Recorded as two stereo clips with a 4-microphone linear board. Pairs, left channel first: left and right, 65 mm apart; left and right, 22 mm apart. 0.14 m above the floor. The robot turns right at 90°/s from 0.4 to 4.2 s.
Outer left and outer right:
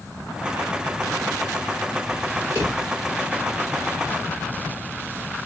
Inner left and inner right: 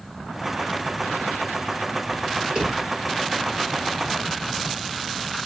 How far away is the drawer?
About 3.5 m.